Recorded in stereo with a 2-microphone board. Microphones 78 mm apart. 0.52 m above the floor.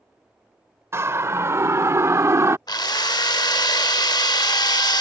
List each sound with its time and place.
0.9 s a siren: 35° right (ahead or behind); by 2.6 s 40° right (ahead or behind)
2.7 s a drill: 60° left (ahead or behind)